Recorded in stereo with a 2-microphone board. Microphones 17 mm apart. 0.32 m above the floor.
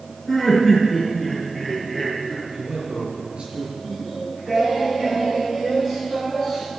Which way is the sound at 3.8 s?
20° right (ahead or behind).